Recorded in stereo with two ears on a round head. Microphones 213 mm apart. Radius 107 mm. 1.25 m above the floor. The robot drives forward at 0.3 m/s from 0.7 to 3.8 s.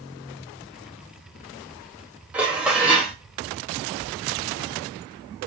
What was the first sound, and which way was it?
Dishes clattering, 5° right (ahead or behind).